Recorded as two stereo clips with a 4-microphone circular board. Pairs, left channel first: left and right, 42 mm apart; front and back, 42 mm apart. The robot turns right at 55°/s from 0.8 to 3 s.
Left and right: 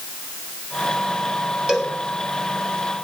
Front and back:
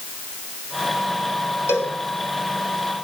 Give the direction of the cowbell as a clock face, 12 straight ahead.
1 o'clock.